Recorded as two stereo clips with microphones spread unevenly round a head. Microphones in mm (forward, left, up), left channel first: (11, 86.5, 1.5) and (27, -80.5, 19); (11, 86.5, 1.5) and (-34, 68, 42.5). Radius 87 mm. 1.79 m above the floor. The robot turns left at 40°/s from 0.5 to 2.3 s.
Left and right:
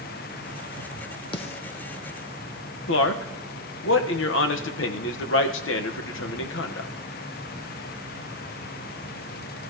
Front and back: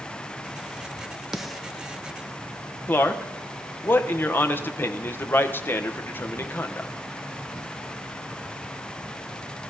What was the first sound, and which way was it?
A snare drum, 155° left.